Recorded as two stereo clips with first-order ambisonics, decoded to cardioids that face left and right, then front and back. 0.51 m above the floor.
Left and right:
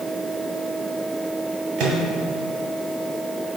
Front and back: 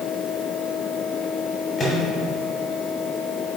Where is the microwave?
70° right, 2.5 m.